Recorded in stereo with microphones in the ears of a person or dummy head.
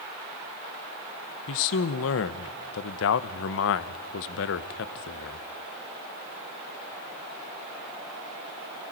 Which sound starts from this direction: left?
A man speaking, at 1.5 s.